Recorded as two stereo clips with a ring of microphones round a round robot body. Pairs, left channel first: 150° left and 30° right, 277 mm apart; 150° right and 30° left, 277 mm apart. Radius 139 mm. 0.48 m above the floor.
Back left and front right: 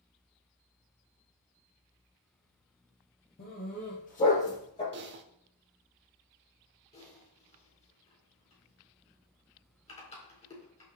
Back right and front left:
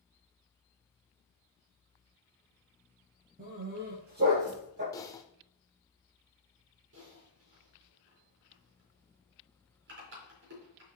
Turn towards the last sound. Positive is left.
turn(degrees=80)